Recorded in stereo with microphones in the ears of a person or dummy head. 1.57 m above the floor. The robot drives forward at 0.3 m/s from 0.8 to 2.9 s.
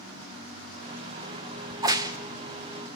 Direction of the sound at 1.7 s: 20° right (ahead or behind).